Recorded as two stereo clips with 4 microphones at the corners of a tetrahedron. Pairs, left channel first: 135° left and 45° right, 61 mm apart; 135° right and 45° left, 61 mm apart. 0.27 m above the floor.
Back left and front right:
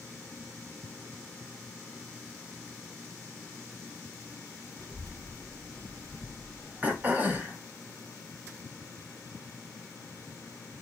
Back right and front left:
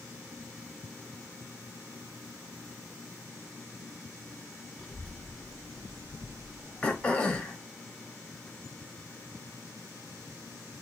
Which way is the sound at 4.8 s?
45° right.